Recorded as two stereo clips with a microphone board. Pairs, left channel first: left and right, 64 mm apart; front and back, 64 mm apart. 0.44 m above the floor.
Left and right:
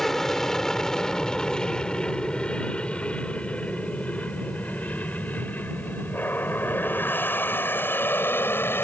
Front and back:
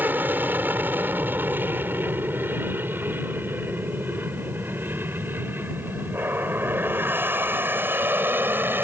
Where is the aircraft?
170° left; by 8.8 s 135° left.